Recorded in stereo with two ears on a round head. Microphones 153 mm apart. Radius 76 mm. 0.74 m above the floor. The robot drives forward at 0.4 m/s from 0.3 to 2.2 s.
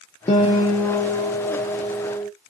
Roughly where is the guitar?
Left.